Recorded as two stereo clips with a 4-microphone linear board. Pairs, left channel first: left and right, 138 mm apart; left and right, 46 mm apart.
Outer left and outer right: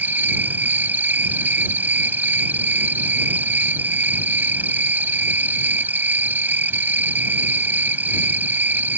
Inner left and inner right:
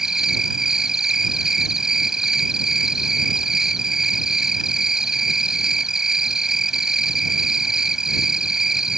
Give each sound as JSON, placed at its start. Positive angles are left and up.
{"t": 0.0, "sound": "an insect", "side_deg": -15}